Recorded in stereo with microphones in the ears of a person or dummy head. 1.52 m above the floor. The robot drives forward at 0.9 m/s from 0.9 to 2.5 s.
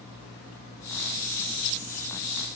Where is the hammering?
I don't hear hammering.